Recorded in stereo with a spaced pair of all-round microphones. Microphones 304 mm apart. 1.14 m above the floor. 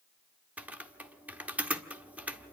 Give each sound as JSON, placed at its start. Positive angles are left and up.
{"t": 0.6, "sound": "typing on a keyboard", "side_deg": -5, "distance_m": 1.2}